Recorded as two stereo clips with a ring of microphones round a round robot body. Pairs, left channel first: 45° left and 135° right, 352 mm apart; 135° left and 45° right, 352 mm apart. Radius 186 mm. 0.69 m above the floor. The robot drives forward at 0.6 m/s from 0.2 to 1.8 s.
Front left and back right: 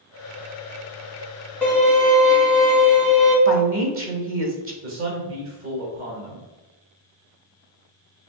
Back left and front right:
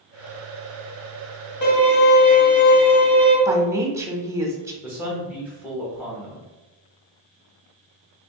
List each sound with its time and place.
1.6 s a violin: 130° left, 1.7 m; by 3.4 s 135° left, 1.7 m
3.5 s a woman speaking: 120° right, 1.0 m
4.8 s a man speaking: 130° right, 1.0 m